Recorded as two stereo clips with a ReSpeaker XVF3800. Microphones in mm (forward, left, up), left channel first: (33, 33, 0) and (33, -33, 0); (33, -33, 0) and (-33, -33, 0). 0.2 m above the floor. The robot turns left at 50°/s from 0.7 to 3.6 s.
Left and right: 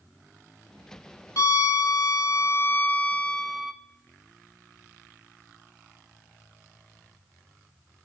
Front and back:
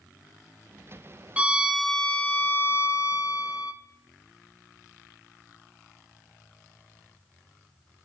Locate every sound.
1.4 s a violin: 110° left, 0.6 m; by 3.7 s straight ahead, 0.6 m